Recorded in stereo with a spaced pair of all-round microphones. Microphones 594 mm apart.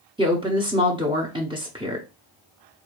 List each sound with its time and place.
0.2 s a woman speaking: 10° right (ahead or behind), 0.8 m